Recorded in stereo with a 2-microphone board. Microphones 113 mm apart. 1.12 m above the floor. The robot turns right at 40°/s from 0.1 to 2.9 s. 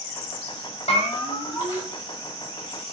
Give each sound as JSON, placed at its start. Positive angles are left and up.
{"t": 0.9, "sound": "a bell", "azimuth_deg": 120, "distance_m": 5.5}